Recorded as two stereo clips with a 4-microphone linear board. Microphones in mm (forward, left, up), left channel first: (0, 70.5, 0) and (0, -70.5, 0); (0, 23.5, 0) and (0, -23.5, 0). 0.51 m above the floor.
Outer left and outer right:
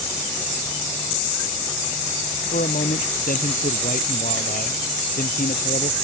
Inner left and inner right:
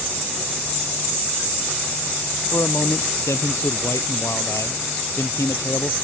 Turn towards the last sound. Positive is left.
turn(degrees=85)